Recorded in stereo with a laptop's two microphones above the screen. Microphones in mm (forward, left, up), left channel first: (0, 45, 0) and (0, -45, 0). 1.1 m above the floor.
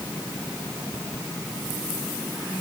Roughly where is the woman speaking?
I don't hear a woman speaking.